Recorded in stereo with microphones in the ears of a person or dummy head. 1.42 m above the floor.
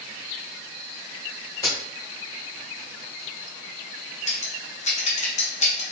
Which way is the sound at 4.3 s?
40° left (ahead or behind).